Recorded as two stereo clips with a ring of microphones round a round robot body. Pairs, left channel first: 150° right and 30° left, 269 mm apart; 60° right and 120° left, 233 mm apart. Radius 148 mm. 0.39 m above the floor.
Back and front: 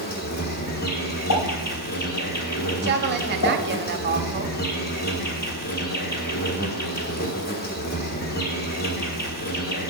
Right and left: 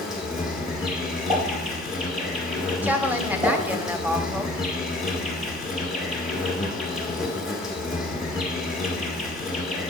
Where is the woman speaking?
40° left, 1.0 m.